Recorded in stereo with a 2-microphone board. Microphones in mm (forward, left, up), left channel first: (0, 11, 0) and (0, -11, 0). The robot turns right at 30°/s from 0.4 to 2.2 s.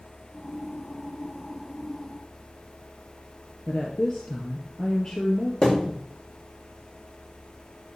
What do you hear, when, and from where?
3.7 s a woman speaking: 45° left (ahead or behind), 2.5 m
5.6 s a thud: 40° left (ahead or behind), 7 m